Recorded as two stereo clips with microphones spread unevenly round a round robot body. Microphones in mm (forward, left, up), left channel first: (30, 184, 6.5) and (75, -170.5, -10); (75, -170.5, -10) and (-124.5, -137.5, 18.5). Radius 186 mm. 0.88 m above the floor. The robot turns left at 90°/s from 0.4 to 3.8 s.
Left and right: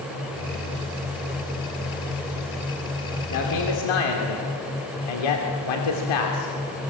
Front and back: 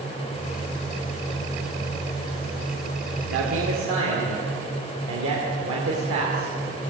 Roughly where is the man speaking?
Behind.